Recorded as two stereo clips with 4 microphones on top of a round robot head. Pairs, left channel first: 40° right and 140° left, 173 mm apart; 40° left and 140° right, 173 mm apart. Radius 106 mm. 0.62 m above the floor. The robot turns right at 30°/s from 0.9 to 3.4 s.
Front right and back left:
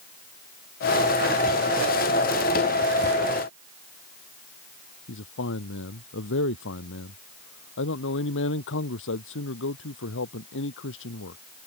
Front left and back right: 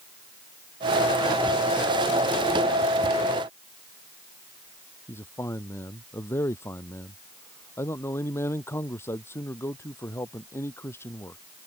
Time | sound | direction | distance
5.1 | a man speaking | 35° right | ?